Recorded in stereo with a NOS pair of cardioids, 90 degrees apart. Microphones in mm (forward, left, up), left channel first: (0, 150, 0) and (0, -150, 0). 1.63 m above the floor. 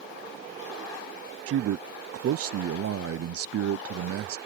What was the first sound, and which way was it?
A man speaking, 55° right.